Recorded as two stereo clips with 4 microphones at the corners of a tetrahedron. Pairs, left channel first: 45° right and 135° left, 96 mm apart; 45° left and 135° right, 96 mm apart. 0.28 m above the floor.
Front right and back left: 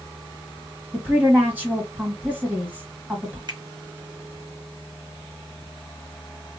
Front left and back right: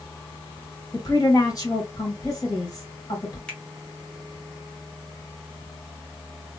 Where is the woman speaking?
70° left, 1.5 m.